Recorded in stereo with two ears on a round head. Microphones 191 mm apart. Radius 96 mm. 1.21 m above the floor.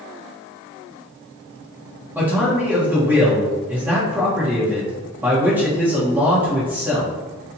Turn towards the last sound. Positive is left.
turn(degrees=-10)  # may be behind; listen again after turning